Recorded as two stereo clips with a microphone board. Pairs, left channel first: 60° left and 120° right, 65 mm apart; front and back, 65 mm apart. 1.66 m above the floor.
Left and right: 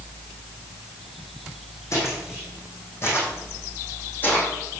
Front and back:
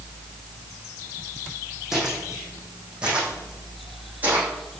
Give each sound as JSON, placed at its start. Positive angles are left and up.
{"t": 1.9, "sound": "footsteps", "azimuth_deg": 100, "distance_m": 5.5}